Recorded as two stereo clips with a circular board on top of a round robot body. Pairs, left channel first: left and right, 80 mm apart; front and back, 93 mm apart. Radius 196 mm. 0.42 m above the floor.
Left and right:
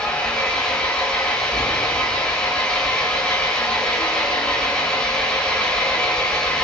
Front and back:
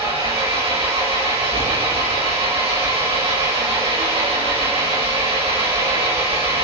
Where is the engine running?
170° left, 7 m.